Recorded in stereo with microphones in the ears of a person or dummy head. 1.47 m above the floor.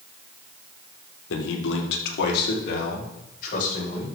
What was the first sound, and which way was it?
A man speaking, 80° left.